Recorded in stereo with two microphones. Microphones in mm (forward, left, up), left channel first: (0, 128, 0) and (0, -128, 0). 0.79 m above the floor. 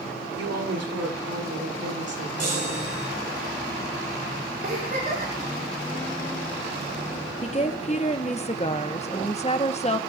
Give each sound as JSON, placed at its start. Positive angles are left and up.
{"t": 0.3, "sound": "a woman speaking", "side_deg": -70, "distance_m": 2.5}
{"t": 2.4, "sound": "a chime", "side_deg": -70, "distance_m": 9.5}
{"t": 4.6, "sound": "a giggle", "side_deg": -40, "distance_m": 9.0}
{"t": 7.4, "sound": "a woman speaking", "side_deg": 25, "distance_m": 0.9}